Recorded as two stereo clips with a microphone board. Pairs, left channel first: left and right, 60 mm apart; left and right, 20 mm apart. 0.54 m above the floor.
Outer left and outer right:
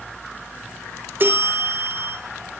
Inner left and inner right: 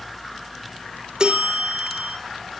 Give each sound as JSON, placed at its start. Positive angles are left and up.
{"t": 1.2, "sound": "a bell", "side_deg": -40, "distance_m": 5.0}